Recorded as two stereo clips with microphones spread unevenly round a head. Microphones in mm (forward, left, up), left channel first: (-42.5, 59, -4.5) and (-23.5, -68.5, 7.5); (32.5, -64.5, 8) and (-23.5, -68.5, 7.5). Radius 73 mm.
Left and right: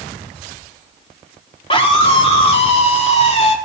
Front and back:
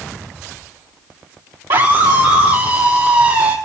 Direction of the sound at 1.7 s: 145° left.